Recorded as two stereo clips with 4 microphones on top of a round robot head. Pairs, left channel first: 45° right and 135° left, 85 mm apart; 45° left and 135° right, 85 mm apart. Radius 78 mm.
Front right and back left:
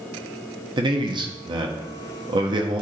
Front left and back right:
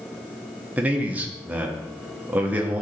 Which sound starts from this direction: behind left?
A man speaking, at 0.8 s.